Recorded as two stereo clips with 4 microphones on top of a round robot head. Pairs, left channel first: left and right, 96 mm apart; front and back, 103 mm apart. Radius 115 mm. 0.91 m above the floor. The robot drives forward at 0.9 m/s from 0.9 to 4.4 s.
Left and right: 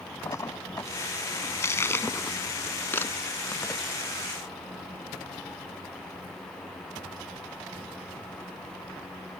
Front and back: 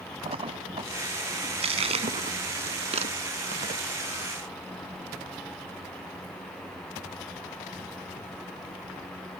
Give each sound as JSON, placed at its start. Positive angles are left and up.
{"t": 0.2, "sound": "a splash", "azimuth_deg": 150}